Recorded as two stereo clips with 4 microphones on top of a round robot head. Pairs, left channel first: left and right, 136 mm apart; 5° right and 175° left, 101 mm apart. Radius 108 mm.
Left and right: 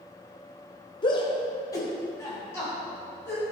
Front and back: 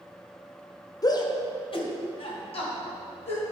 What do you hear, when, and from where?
1.0 s a shout: 45° left, 1.3 m; by 3.4 s 15° left, 4.5 m